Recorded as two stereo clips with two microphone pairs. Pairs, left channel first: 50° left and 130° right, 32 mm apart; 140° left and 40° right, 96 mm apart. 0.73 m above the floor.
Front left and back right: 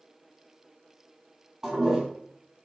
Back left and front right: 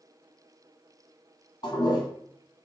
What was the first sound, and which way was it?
A toilet flushing, 165° left.